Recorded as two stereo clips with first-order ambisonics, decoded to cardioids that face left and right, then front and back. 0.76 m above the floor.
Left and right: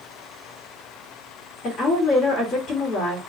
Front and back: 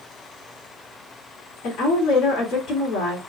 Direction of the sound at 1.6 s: 40° left.